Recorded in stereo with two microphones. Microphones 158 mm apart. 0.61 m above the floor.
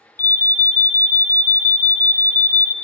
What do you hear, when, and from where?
0.2 s an alarm: 60° left (ahead or behind), 0.5 m